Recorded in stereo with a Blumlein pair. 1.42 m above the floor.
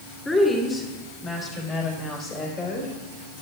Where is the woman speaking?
15° left, 3.5 m; by 2.9 s 40° left, 5.5 m.